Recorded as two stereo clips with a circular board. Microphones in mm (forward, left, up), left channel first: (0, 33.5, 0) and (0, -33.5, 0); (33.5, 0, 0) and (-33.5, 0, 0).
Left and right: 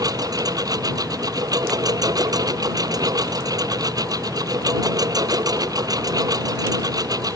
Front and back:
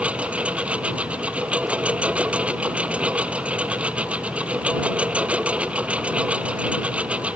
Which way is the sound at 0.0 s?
110° right.